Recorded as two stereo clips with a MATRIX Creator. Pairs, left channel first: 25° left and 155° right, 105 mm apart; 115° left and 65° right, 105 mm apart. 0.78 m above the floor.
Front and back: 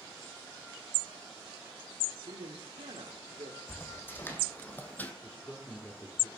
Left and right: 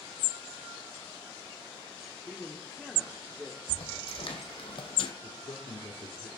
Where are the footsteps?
90° left, 2 m; by 5.1 s 95° left, 1.6 m.